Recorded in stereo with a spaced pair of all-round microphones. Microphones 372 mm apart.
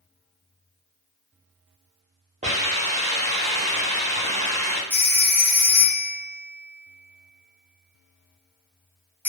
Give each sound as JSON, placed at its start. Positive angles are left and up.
{"t": 2.4, "sound": "a hiss", "side_deg": -20, "distance_m": 0.7}
{"t": 4.9, "sound": "a phone ringing", "side_deg": -5, "distance_m": 0.7}